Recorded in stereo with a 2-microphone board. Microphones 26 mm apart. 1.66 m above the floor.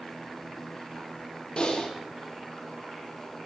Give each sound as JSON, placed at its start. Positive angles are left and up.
{"t": 1.6, "sound": "typing on a keyboard", "side_deg": 40, "distance_m": 1.2}